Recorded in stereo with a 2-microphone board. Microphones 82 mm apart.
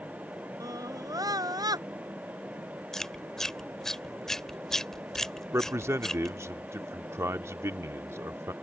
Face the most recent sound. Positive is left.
turn(degrees=-30)  # may be behind; listen again after turning